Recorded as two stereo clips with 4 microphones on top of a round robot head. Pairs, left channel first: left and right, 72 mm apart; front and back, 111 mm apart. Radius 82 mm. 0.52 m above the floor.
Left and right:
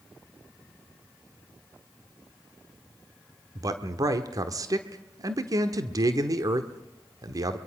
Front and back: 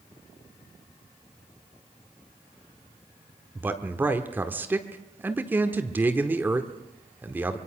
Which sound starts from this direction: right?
A man speaking, at 3.5 s.